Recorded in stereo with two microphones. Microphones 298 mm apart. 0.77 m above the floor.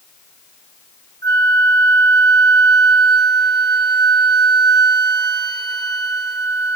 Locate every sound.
1.2 s a flute: 35° right (ahead or behind), 0.7 m